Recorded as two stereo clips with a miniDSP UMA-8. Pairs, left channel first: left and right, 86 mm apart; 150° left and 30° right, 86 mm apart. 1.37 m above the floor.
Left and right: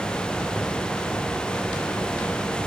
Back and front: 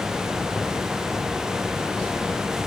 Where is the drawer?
I don't hear a drawer.